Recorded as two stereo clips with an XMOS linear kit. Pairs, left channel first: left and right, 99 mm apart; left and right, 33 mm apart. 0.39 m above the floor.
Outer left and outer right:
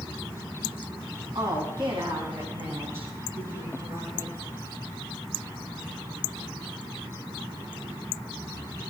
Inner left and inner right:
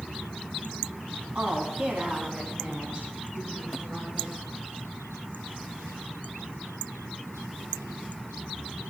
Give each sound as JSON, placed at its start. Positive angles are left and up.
{"t": 1.4, "sound": "a woman speaking", "side_deg": -50, "distance_m": 3.0}